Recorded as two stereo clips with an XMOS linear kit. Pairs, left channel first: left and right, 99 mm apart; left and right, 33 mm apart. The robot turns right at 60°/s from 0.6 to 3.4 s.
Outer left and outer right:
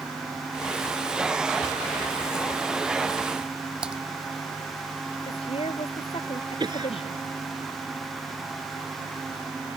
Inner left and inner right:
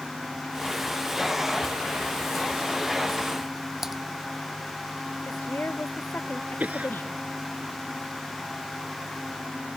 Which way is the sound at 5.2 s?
70° left (ahead or behind).